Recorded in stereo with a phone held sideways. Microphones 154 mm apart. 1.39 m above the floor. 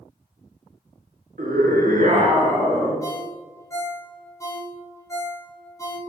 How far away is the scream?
About 0.9 m.